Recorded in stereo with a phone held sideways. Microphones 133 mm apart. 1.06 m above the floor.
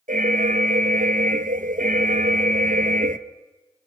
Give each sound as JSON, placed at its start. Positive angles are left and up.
{"t": 0.1, "sound": "an alarm", "side_deg": -80, "distance_m": 0.8}